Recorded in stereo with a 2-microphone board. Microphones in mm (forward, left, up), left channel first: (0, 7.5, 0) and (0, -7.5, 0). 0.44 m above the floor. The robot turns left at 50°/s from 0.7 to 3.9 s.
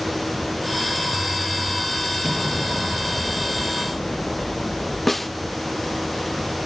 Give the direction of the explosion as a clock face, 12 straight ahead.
5 o'clock.